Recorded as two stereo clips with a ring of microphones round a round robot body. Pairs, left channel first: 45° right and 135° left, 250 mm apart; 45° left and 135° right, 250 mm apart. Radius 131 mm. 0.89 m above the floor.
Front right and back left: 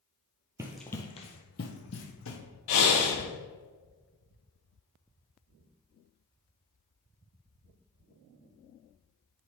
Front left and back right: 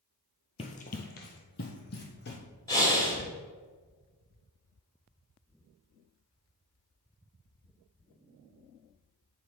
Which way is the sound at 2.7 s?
35° right.